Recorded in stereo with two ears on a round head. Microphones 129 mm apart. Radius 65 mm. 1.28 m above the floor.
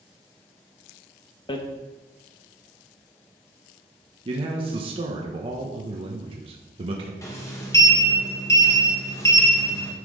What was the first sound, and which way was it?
Hammering, 35° left (ahead or behind).